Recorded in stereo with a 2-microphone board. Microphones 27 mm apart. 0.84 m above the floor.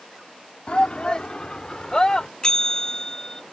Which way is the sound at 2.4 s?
25° left (ahead or behind).